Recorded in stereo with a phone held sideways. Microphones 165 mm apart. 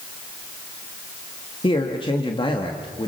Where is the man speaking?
30° left (ahead or behind), 1.9 m.